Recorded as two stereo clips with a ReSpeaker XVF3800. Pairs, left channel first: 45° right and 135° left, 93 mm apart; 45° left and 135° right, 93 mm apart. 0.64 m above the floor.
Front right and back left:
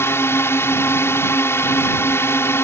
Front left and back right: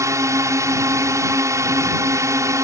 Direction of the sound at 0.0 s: 95° right.